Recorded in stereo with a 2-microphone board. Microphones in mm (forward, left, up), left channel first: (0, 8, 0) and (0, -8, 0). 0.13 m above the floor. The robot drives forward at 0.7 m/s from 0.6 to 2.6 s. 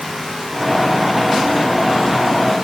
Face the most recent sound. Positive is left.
No sound to turn to.